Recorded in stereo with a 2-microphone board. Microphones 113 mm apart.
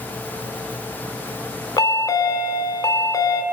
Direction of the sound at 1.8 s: 35° left (ahead or behind).